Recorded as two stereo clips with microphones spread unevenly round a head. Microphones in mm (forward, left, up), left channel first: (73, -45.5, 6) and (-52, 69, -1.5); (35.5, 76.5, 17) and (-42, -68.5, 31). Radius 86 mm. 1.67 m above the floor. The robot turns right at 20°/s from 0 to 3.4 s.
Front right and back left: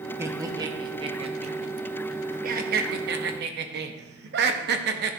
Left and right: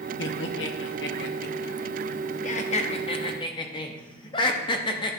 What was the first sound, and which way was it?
Laughter, 60° left.